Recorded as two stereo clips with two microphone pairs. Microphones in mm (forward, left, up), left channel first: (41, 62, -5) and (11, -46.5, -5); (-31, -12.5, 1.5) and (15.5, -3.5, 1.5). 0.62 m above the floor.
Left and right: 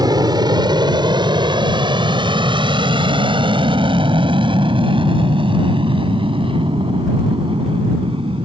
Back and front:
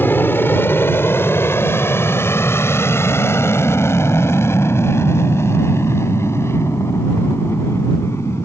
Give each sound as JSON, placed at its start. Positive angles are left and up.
{"t": 0.0, "sound": "an aircraft", "azimuth_deg": -145}